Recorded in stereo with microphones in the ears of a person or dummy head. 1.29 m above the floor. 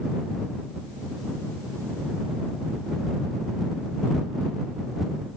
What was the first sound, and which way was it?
Only background noise.